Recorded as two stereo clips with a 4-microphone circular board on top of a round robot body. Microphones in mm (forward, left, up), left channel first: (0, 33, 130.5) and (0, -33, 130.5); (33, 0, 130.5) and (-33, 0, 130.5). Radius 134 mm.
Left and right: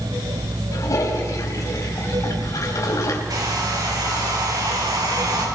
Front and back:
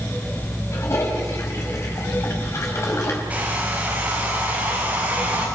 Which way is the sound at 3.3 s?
115° right.